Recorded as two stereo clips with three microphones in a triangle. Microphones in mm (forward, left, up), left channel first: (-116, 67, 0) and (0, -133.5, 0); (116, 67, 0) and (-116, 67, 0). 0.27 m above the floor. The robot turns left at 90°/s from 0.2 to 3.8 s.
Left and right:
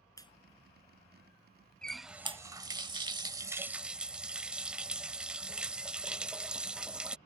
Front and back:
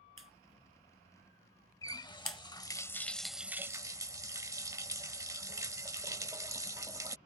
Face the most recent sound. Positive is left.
turn(degrees=-135)